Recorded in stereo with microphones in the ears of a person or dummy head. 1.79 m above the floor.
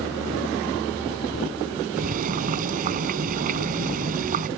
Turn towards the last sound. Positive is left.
turn(degrees=-50)  # may be behind; listen again after turning